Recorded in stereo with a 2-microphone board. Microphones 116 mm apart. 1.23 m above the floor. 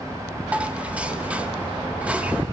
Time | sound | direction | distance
0.5 | dishes clattering | 10° right (ahead or behind) | 0.9 m